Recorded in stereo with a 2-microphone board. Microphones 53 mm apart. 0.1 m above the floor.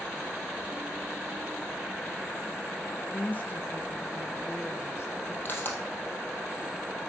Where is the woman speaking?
35° left (ahead or behind), 1.4 m; by 5.3 s 55° left (ahead or behind), 2.0 m.